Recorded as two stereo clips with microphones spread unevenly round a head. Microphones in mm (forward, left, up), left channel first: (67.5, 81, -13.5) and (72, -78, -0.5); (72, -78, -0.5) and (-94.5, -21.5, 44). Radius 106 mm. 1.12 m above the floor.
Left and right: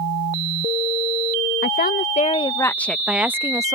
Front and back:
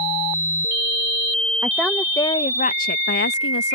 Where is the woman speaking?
80° left; by 3.8 s 20° right.